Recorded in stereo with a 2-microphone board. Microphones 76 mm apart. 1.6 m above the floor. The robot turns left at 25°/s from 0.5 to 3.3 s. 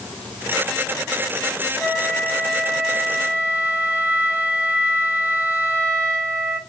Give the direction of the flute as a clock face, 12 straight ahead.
12 o'clock.